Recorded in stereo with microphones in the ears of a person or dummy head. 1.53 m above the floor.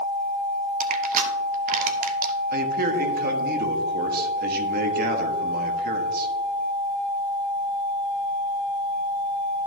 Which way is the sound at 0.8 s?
50° right (ahead or behind).